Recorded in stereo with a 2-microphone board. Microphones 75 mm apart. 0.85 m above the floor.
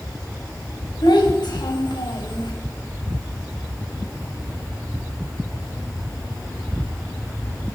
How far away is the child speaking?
About 4 m.